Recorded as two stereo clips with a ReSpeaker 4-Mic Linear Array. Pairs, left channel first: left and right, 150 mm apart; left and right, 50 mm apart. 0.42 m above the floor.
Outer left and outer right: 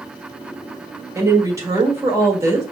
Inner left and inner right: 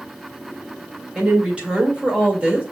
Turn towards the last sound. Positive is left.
turn(degrees=-20)  # may be behind; listen again after turning